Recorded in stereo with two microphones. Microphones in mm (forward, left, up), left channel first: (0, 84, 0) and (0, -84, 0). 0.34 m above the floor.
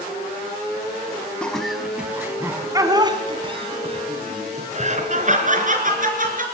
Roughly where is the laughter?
Centre.